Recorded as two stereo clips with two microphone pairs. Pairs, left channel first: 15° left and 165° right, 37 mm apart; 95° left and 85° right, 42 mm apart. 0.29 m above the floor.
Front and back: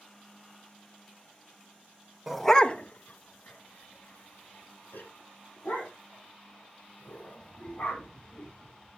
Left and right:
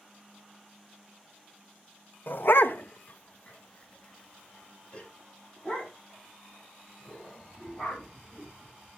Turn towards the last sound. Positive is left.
turn(degrees=20)